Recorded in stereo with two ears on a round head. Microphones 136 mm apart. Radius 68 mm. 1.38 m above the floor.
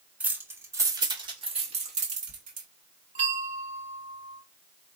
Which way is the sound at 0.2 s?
10° right (ahead or behind).